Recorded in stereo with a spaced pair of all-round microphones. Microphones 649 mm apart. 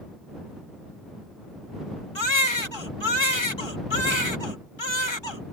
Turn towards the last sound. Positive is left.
turn(degrees=40)  # may be behind; listen again after turning